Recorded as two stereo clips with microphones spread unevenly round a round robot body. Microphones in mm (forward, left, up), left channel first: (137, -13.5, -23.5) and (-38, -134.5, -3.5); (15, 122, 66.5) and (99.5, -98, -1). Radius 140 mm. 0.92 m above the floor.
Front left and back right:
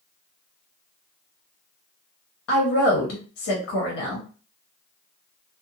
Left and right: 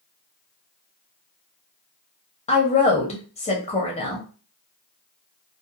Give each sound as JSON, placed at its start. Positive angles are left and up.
{"t": 2.5, "sound": "a woman speaking", "azimuth_deg": 40, "distance_m": 0.9}